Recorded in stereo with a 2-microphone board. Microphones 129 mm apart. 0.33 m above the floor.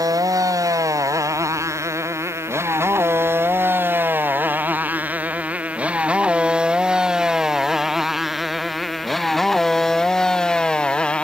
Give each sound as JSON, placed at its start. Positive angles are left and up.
{"t": 0.0, "sound": "a motorcycle", "side_deg": -25}